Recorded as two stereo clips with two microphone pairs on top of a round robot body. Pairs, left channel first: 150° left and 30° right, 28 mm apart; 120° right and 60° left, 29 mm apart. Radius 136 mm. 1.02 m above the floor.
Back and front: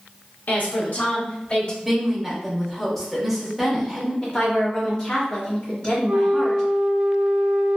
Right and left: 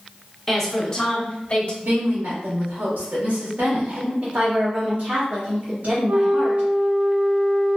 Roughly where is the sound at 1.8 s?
Ahead left.